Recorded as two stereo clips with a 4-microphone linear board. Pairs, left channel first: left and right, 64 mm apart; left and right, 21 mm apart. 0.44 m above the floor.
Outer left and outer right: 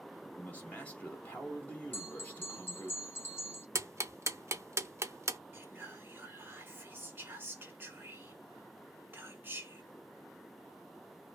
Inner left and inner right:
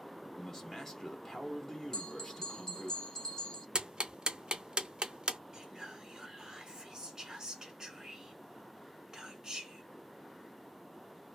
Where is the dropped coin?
I don't hear a dropped coin.